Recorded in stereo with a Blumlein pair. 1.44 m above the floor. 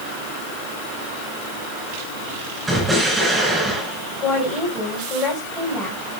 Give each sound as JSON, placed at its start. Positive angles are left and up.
{"t": 2.7, "sound": "an explosion", "azimuth_deg": -5, "distance_m": 7.0}
{"t": 4.2, "sound": "a woman speaking", "azimuth_deg": 20, "distance_m": 7.5}